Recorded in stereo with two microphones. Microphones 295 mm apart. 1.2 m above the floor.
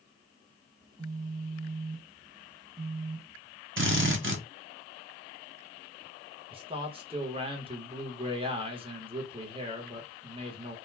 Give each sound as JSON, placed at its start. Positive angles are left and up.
{"t": 0.8, "sound": "a phone buzzing", "side_deg": -15, "distance_m": 1.2}
{"t": 3.8, "sound": "a drill", "side_deg": -45, "distance_m": 0.6}
{"t": 6.5, "sound": "a man speaking", "side_deg": -20, "distance_m": 0.9}